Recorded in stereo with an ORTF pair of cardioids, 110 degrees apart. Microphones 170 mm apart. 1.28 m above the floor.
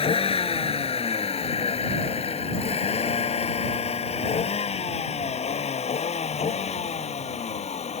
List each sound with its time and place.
0.0 s a vehicle: 35° left; by 8.0 s 40° left